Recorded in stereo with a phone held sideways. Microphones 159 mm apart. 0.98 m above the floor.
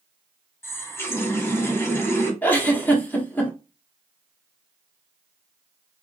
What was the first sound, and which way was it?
A running tap, 15° left (ahead or behind).